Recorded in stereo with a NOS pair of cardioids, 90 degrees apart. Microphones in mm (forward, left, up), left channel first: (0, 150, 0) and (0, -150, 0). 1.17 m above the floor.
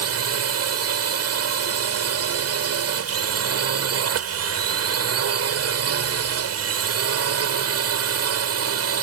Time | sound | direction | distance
0.0 | a drone | 55° right | ?